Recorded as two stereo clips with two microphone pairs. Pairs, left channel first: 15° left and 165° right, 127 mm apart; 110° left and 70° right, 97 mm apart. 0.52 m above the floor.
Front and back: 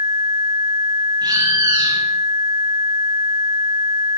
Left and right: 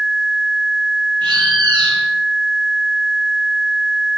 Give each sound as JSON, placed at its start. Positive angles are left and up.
{"t": 1.2, "sound": "a bird", "azimuth_deg": -105, "distance_m": 6.0}